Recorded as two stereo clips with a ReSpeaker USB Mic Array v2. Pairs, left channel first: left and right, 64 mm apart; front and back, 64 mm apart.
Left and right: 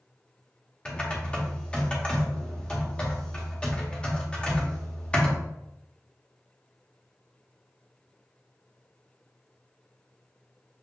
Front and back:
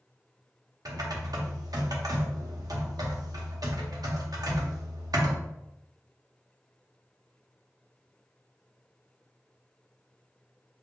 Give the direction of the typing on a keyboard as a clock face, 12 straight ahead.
7 o'clock.